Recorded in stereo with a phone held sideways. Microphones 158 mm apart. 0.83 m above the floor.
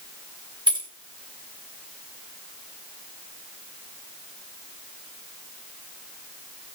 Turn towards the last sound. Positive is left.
turn(degrees=-25)  # may be behind; listen again after turning